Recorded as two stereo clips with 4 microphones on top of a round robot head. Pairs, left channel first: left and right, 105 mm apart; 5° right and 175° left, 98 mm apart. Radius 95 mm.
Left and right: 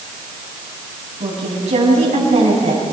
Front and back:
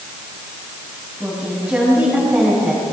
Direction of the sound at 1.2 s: 105° right.